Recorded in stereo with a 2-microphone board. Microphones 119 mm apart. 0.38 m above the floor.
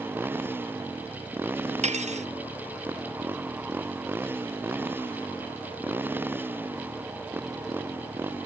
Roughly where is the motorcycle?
Centre.